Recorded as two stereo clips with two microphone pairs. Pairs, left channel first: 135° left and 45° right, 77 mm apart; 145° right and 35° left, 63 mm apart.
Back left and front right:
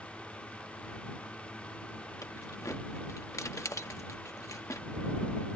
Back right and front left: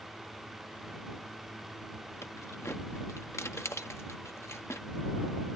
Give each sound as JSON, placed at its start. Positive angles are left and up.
{"t": 2.2, "sound": "keys jangling", "azimuth_deg": 180}